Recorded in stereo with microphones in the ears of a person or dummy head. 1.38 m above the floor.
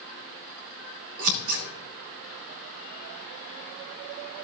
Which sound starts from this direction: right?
Scissors, at 1.2 s.